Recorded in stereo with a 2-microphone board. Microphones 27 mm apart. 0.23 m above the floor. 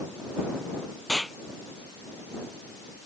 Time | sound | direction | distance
1.1 | an explosion | 15° left (ahead or behind) | ?